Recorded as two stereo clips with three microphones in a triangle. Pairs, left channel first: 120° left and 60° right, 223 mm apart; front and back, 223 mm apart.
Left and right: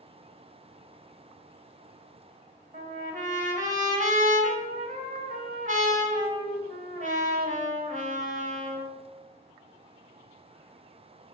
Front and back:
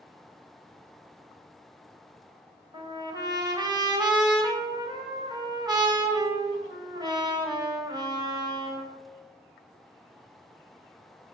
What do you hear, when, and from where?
2.7 s a trumpet: 110° right, 1.3 m